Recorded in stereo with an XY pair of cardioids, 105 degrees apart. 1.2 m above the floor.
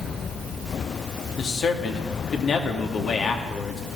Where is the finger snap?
I don't hear a finger snap.